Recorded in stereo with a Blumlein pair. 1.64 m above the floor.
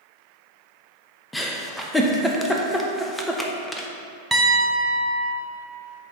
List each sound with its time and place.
1.3 s a giggle: 5° left, 0.7 m
4.3 s a piano: 5° right, 0.9 m